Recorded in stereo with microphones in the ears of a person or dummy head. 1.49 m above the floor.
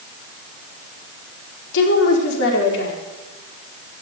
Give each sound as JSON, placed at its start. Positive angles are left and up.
{"t": 1.7, "sound": "a woman speaking", "side_deg": 65, "distance_m": 4.5}